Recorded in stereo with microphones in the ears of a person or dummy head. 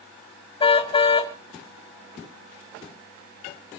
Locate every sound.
0.6 s a car horn: 25° left (ahead or behind), 2 m